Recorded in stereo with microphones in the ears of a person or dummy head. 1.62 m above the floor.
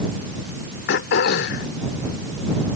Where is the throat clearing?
55° left (ahead or behind).